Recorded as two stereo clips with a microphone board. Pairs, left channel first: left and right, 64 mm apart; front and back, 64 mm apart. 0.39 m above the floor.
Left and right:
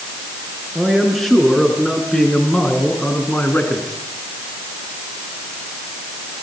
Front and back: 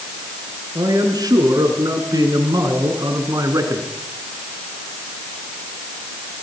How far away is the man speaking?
About 6 m.